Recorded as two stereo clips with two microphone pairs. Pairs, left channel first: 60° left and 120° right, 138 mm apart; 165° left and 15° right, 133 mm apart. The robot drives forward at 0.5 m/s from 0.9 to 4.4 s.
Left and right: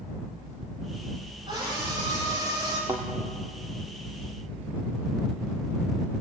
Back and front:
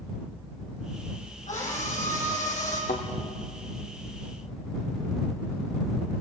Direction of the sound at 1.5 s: 175° right.